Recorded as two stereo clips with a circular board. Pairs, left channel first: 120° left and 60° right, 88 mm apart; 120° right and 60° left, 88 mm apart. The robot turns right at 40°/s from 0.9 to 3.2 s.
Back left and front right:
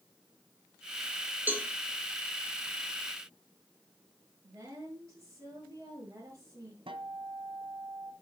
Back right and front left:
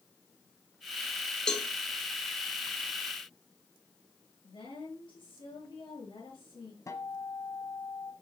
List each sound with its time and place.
1.5 s a cowbell: 50° right, 1.2 m; by 1.7 s 45° right, 1.2 m
4.4 s a woman speaking: 110° right, 6.5 m
6.9 s a guitar: 70° right, 1.4 m